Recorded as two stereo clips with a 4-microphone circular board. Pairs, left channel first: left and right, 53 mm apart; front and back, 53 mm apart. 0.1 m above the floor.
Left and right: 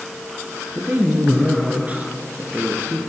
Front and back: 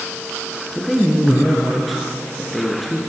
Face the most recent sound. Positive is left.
turn(degrees=-90)